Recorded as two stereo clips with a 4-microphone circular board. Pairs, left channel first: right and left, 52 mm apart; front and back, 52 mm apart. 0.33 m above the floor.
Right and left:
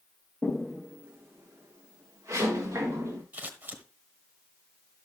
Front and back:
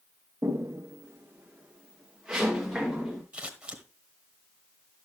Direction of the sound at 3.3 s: 125° left.